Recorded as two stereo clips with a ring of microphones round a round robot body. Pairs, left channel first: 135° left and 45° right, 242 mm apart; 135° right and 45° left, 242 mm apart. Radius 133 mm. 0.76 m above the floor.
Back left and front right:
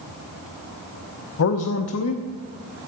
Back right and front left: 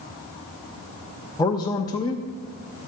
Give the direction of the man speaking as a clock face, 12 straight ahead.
7 o'clock.